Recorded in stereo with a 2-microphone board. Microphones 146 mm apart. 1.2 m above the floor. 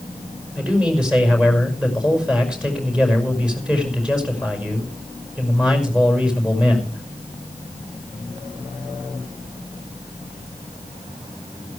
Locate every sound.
0.6 s a man speaking: 5° right (ahead or behind), 5.5 m